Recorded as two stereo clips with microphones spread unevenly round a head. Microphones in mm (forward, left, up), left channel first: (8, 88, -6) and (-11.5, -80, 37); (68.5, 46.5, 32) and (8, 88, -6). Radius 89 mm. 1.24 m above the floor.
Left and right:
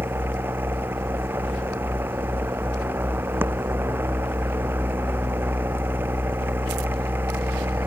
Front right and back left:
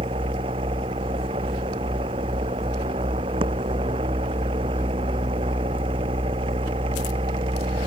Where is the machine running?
175° right.